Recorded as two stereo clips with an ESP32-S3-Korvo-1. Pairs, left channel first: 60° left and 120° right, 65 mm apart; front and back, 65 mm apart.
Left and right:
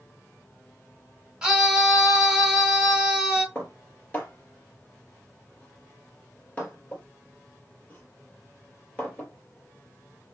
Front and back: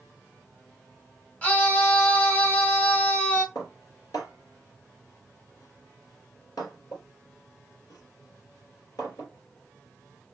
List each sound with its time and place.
1.4 s a scream: 50° right, 1.6 m
3.5 s dishes clattering: 5° right, 2.5 m